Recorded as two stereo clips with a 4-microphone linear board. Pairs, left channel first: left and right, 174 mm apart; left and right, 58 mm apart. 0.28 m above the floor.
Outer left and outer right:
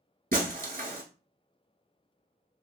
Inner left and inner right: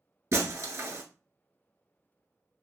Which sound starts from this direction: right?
Breaking glass, at 0.3 s.